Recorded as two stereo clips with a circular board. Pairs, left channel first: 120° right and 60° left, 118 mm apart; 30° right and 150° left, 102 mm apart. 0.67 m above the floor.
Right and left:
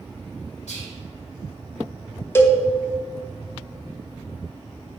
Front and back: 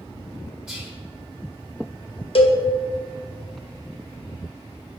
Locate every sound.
0.7 s whispering: 135° right, 1.7 m
2.4 s a cowbell: 50° right, 0.8 m